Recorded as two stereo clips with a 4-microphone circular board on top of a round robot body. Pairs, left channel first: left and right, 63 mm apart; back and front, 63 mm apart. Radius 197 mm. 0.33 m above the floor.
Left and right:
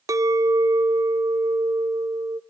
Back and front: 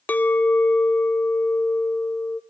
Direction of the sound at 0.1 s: 115° right.